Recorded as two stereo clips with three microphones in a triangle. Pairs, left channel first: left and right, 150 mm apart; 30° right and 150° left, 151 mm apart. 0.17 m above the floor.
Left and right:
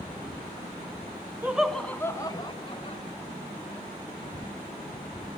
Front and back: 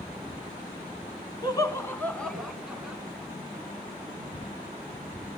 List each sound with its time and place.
1.4 s laughter: 25° right, 1.4 m; by 3.0 s 70° left, 2.0 m